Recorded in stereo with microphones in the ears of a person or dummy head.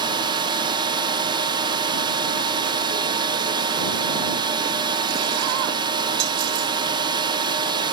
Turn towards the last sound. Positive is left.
turn(degrees=-25)  # may be behind; listen again after turning